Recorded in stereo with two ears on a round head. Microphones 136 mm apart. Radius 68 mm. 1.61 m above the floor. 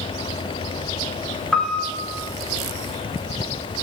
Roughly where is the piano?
Centre.